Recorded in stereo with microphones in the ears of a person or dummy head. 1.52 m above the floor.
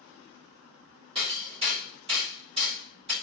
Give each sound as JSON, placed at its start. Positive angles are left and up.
{"t": 1.1, "sound": "hammering", "side_deg": -30, "distance_m": 3.5}